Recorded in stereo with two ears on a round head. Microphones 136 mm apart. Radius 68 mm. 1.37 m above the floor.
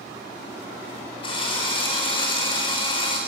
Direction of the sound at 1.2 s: 35° left (ahead or behind).